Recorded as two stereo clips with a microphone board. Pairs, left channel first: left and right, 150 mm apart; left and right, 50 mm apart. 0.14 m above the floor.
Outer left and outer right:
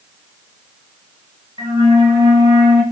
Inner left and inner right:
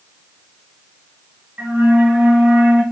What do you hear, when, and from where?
1.6 s a flute: 30° right (ahead or behind), 1.2 m